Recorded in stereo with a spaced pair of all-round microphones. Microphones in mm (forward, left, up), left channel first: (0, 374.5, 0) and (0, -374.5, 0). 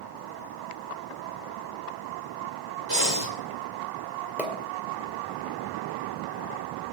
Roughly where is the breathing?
Right.